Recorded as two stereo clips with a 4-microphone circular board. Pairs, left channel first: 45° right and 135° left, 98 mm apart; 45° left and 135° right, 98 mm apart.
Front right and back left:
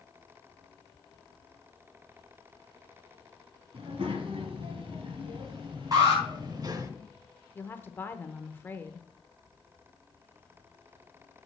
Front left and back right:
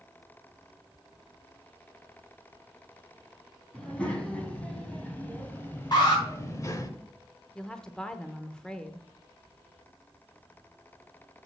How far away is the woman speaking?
About 0.8 m.